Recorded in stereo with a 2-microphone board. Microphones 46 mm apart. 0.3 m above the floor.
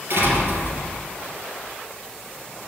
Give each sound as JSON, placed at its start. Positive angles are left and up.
{"t": 0.1, "sound": "a door slam", "side_deg": -60, "distance_m": 4.5}